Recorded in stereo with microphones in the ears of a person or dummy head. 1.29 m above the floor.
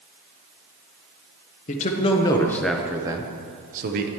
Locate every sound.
1.7 s a man speaking: 40° left (ahead or behind), 1.0 m; by 4.1 s 50° right (ahead or behind), 1.1 m